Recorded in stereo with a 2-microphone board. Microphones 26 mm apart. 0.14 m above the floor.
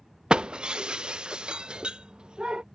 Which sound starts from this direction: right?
Breaking glass, at 0.3 s.